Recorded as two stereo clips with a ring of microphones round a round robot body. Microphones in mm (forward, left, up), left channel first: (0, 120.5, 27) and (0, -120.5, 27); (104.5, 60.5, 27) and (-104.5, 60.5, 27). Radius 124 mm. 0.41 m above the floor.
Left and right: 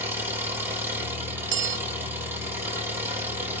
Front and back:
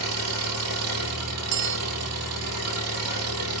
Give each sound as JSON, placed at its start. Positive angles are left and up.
{"t": 0.0, "sound": "an engine running", "azimuth_deg": -170, "distance_m": 6.0}
{"t": 1.5, "sound": "a bell", "azimuth_deg": -135, "distance_m": 0.5}